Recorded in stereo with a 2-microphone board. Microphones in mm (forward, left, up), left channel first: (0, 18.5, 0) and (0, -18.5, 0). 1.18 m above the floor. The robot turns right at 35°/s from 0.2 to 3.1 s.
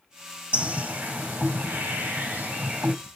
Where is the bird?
130° right, 1.6 m; by 3.0 s 45° right, 1.6 m.